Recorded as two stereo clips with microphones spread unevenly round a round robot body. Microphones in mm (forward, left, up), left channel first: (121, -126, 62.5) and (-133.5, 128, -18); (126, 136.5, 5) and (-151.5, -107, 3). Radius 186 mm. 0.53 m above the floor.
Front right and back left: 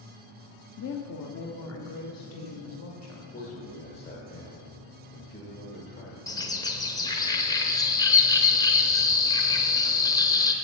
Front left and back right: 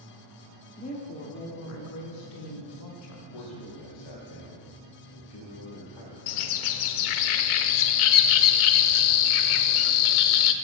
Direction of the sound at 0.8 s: 15° right.